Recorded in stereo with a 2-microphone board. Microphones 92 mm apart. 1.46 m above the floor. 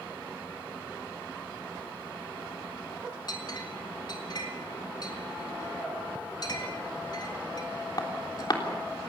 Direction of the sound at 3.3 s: 50° left (ahead or behind).